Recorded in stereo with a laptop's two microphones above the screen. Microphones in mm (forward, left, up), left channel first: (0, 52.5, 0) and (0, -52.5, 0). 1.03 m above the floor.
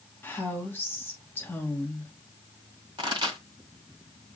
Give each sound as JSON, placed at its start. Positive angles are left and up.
{"t": 0.2, "sound": "a woman speaking", "side_deg": 20, "distance_m": 1.1}
{"t": 3.0, "sound": "a pop", "side_deg": -45, "distance_m": 1.9}